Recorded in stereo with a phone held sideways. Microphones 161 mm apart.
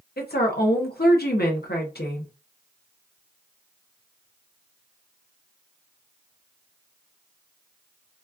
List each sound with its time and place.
0.2 s a woman speaking: 80° left, 0.9 m